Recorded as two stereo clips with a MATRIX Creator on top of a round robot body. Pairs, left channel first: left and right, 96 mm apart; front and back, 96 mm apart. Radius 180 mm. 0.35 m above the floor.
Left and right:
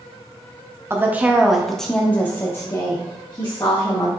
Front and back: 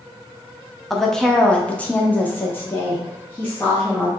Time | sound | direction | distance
0.9 | a woman speaking | 85° right | 1.0 m